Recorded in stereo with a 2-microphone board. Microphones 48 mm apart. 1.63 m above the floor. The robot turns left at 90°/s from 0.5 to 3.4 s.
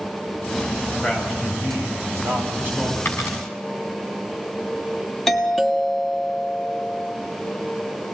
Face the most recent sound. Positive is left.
turn(degrees=5)  # may be behind; listen again after turning